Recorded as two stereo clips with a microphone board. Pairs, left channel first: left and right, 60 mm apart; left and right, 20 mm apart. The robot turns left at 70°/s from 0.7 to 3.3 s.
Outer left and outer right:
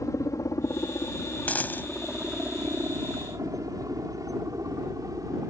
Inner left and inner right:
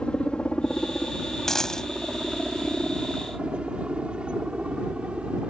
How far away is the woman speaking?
No woman speaking in this recording.